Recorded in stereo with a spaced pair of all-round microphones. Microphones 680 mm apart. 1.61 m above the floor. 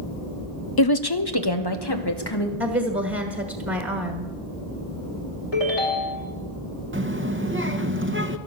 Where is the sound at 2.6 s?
20° right (ahead or behind), 1.5 m.